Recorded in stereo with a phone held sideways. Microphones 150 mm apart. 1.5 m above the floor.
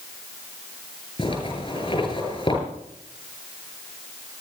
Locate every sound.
1.2 s a zipper: 35° left (ahead or behind), 9 m